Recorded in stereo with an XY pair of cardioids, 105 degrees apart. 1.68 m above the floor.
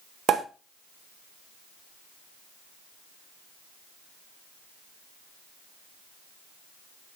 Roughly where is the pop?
Ahead right.